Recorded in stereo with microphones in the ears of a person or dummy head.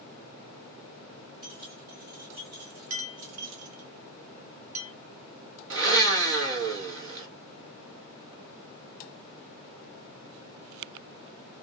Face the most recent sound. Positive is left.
turn(degrees=-65)  # may be behind; listen again after turning